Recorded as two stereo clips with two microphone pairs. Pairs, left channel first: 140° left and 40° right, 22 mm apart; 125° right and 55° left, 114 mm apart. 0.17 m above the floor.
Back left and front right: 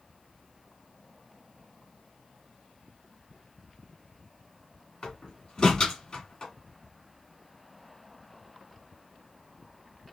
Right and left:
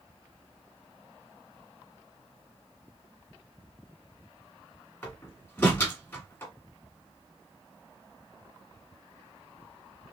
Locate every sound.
5.0 s a door slam: 175° left, 1.5 m